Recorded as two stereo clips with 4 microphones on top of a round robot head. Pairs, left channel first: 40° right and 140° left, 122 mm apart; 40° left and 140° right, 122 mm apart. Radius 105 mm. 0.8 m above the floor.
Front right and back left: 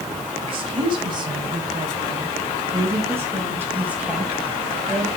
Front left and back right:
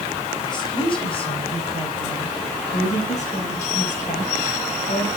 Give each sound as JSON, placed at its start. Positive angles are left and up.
{"t": 0.4, "sound": "a woman speaking", "azimuth_deg": 95, "distance_m": 4.5}